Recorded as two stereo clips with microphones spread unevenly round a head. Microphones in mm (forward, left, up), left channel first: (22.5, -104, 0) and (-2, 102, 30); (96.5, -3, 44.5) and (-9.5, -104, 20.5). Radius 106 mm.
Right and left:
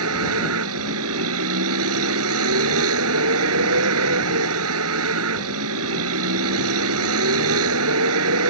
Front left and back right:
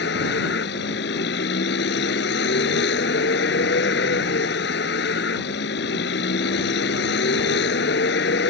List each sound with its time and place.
0.0 s a vehicle: 80° left